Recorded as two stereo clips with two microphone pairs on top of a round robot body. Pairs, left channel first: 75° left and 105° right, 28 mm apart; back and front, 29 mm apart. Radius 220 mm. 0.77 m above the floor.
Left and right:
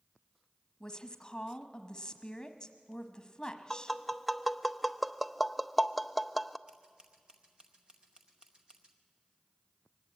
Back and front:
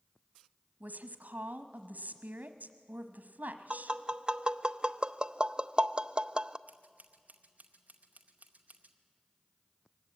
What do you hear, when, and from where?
0.8 s a woman speaking: straight ahead, 1.1 m
3.7 s tapping: 20° right, 0.8 m
6.7 s scissors: 45° right, 0.7 m